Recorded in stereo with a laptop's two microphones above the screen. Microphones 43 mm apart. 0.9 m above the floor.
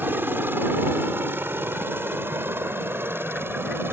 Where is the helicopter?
55° right (ahead or behind); by 3.9 s 65° right (ahead or behind).